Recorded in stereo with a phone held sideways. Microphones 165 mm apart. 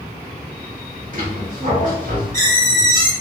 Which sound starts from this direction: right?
A squeak, at 1.1 s.